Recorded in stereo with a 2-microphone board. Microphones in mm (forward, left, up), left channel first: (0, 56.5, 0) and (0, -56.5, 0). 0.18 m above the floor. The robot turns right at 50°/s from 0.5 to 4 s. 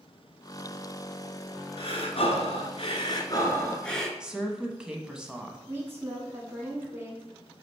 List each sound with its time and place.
1.8 s breathing: 65° left, 1.1 m; by 4.1 s 175° left, 1.1 m
4.2 s a woman speaking: 5° right (ahead or behind), 1.0 m
5.7 s a woman speaking: 20° right (ahead or behind), 2.5 m